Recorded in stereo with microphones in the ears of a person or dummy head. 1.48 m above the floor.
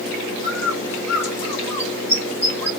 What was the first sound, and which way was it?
A bird, 15° left (ahead or behind).